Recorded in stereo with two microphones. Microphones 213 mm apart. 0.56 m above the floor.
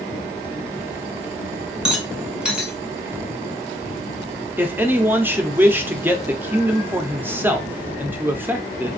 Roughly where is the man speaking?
Centre.